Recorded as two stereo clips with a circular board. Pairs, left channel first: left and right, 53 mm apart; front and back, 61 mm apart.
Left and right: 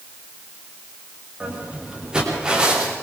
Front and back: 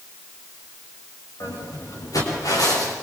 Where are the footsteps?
15° right, 9.5 m.